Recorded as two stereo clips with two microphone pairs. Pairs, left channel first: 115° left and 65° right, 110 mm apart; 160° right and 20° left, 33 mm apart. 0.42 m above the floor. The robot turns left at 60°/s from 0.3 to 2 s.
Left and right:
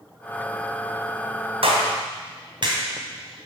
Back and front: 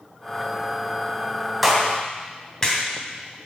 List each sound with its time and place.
1.6 s a clap: 70° right, 2.5 m; by 3.5 s 95° right, 2.5 m